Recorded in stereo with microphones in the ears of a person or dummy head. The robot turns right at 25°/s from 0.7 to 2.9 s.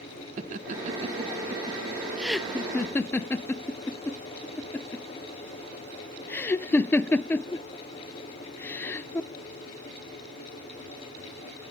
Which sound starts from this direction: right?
Laughter, at 0.4 s.